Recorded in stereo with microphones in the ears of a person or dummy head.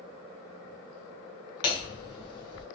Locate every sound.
1.6 s hammering: 25° left (ahead or behind), 0.5 m